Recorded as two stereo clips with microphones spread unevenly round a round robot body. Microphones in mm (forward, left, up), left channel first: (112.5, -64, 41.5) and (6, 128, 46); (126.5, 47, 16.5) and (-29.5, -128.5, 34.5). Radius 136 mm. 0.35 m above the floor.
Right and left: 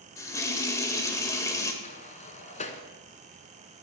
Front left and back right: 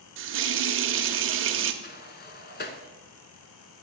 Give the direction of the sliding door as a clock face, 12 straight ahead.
12 o'clock.